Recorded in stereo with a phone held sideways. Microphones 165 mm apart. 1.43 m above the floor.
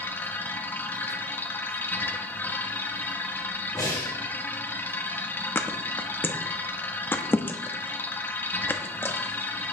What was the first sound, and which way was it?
A machine running, 10° left (ahead or behind).